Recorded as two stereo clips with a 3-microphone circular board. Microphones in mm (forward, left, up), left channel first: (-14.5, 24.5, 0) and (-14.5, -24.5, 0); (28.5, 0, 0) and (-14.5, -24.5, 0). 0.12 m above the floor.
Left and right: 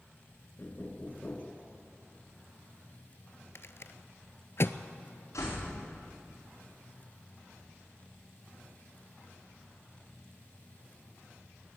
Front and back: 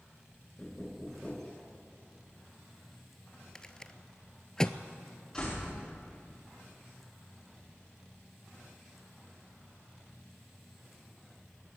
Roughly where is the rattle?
Left.